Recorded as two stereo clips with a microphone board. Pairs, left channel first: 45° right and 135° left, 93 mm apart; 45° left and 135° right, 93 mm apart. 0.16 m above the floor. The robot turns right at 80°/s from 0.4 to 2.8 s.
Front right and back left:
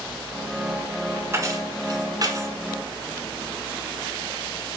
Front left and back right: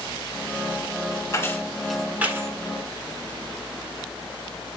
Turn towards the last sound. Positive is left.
turn(degrees=-155)